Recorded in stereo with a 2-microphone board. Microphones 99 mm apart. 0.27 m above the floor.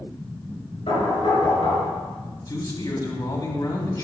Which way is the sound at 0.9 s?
75° left (ahead or behind).